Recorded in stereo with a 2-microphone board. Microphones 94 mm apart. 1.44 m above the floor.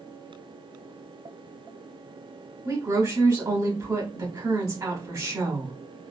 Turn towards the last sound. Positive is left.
turn(degrees=-40)  # may be behind; listen again after turning